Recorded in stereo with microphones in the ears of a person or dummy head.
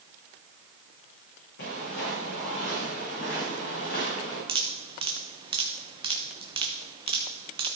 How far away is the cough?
I don't hear a cough.